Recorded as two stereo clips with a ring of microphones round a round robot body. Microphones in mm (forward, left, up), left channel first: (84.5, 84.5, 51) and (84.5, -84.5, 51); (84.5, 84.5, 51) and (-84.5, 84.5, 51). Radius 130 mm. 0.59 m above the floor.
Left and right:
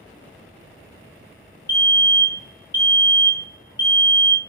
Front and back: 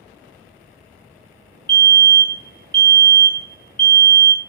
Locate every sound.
1.7 s a fire alarm: 130° left, 1.9 m